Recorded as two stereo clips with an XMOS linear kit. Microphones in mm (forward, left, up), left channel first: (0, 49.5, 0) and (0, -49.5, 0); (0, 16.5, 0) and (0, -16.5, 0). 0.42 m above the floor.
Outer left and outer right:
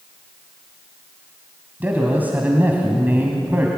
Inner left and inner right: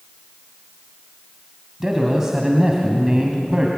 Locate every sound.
1.8 s a man speaking: 20° right (ahead or behind), 3 m